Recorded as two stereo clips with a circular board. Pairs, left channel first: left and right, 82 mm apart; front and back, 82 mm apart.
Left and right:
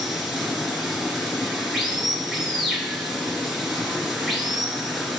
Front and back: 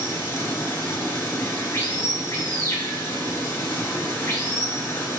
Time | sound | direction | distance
0.0 | running water | 5° right | 1.8 m